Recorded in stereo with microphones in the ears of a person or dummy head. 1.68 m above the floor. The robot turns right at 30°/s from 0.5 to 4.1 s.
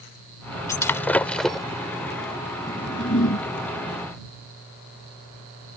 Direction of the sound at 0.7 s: 15° left (ahead or behind).